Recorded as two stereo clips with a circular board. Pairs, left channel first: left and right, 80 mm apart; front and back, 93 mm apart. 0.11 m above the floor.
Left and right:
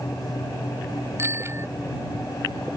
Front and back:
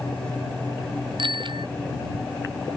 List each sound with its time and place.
1.2 s a bicycle bell: 145° right